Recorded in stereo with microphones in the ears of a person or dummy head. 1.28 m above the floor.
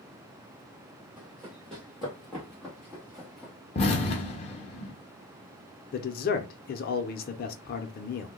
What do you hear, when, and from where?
1.2 s running footsteps: 5° left (ahead or behind), 2 m
3.8 s an explosion: 35° left (ahead or behind), 0.8 m
5.9 s a man speaking: 45° left (ahead or behind), 0.7 m